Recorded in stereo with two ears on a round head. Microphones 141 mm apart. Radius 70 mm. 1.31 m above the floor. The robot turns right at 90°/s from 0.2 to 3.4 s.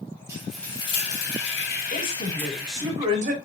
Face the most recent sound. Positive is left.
turn(degrees=-120)